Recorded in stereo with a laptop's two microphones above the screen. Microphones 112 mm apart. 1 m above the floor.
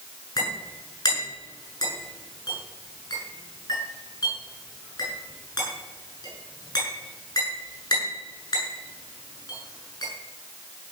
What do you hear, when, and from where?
0.4 s a clink: 35° left (ahead or behind), 7 m